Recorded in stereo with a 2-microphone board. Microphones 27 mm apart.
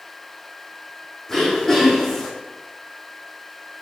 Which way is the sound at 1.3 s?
10° left (ahead or behind).